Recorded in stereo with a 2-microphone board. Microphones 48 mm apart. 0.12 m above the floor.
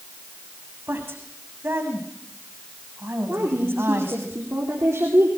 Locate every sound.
0.9 s a woman speaking: 55° right (ahead or behind), 7 m
3.3 s a woman speaking: 65° right (ahead or behind), 5.5 m